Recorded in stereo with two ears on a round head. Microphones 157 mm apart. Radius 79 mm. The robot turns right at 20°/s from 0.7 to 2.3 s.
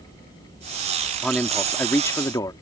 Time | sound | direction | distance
1.2 | a man speaking | centre (ahead or behind) | ?